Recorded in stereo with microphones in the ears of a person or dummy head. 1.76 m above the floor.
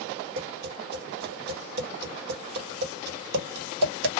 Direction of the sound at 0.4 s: 60° right (ahead or behind).